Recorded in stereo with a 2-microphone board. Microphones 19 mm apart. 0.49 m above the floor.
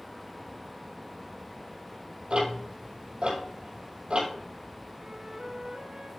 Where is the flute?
55° right (ahead or behind), 2 m.